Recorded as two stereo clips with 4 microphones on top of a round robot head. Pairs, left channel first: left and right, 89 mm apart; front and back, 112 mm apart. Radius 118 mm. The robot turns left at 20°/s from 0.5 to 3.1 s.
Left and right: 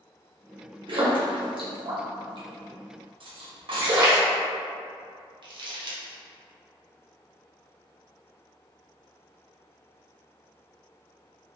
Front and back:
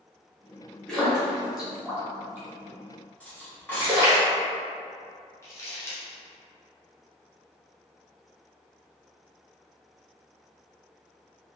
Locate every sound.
0.9 s a splash: 80° right, 1.0 m; by 4.2 s 125° right, 1.0 m
3.2 s cutlery clinking: 75° right, 0.9 m
5.4 s crumpling: 65° right, 0.9 m